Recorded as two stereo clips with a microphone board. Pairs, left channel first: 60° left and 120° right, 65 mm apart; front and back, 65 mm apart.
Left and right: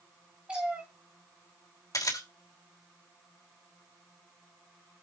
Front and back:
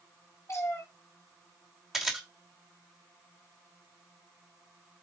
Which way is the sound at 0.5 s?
45° right.